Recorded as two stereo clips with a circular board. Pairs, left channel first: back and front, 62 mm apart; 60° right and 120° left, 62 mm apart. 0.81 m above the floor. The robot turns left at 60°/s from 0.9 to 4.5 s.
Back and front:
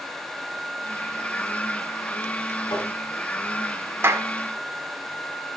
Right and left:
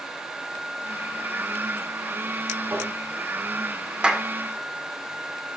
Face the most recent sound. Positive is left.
turn(degrees=20)